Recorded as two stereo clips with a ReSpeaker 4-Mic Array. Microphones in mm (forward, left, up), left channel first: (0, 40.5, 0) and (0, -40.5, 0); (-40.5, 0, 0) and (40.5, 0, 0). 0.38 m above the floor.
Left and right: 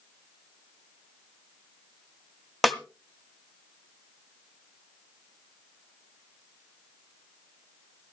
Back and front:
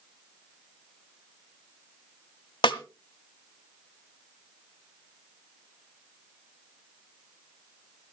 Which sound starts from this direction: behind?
A snare drum, at 2.6 s.